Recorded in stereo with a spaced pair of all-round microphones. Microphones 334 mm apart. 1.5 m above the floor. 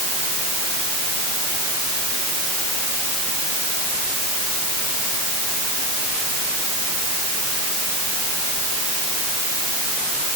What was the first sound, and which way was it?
Only background noise.